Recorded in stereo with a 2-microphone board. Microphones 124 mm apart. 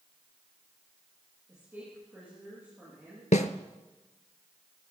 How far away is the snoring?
No snoring in this recording.